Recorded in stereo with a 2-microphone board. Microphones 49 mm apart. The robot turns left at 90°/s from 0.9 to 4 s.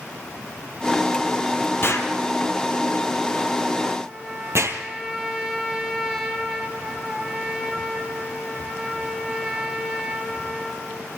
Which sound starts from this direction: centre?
A trumpet, at 4.0 s.